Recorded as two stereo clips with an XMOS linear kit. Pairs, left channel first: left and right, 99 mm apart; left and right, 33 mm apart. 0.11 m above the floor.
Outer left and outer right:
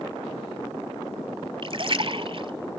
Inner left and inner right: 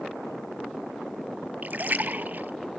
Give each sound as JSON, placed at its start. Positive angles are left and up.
{"t": 1.6, "sound": "a splash", "side_deg": -55, "distance_m": 0.7}